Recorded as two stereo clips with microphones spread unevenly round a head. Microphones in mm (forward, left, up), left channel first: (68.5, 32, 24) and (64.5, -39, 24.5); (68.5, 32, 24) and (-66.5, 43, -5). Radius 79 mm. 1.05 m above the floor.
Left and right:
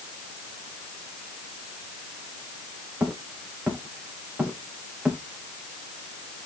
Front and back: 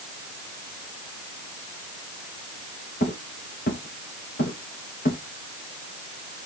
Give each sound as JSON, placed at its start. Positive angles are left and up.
{"t": 3.0, "sound": "footsteps", "azimuth_deg": -35, "distance_m": 3.5}